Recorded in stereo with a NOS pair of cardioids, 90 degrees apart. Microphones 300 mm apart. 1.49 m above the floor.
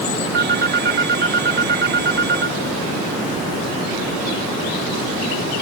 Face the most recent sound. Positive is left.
turn(degrees=-35)